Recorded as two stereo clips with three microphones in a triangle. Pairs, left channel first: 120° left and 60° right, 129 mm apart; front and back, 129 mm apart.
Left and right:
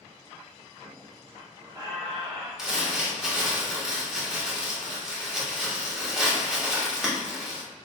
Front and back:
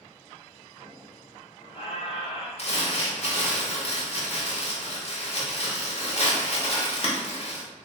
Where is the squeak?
15° right, 1.4 m.